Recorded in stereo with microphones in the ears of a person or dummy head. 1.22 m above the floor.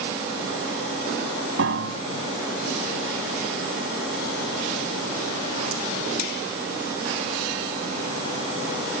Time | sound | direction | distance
1.6 | a piano | 75° right (ahead or behind) | ?